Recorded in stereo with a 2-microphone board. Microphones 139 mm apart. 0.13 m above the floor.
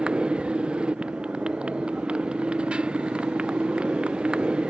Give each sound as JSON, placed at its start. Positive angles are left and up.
{"t": 0.0, "sound": "a motorcycle", "side_deg": -5}